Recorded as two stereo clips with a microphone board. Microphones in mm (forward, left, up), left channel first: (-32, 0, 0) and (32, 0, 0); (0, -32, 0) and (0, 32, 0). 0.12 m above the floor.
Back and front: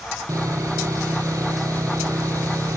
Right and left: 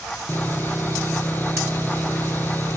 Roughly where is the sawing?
Ahead right.